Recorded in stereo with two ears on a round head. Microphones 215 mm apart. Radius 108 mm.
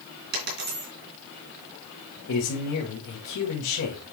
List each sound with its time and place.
0.3 s a dropped coin: 45° right (ahead or behind), 3 m
2.3 s a man speaking: 70° left (ahead or behind), 2.5 m